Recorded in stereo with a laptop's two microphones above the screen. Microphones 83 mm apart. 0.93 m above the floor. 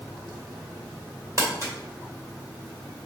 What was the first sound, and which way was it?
Crumpling, 40° right (ahead or behind).